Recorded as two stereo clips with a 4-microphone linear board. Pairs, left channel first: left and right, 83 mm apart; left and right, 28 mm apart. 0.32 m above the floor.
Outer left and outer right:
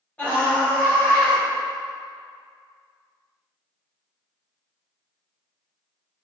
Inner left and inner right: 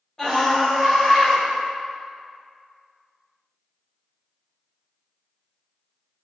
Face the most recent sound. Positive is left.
turn(degrees=20)  # may be behind; listen again after turning